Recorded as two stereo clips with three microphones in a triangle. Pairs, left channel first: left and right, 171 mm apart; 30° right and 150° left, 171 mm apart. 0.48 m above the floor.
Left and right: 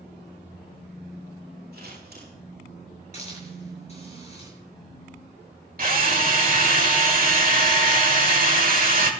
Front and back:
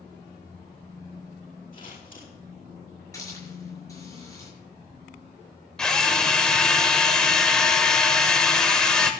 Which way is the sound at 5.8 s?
115° right.